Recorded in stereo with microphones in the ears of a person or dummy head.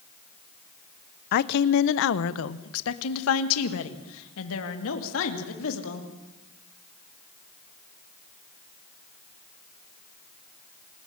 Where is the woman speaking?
50° left (ahead or behind), 0.8 m; by 6.1 s 75° left (ahead or behind), 3 m.